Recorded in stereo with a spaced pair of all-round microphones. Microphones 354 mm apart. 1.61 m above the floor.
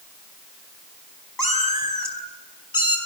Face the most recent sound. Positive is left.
turn(degrees=65)  # may be behind; listen again after turning